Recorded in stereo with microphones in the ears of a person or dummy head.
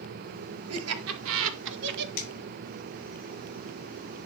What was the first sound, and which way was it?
Laughter, 80° right.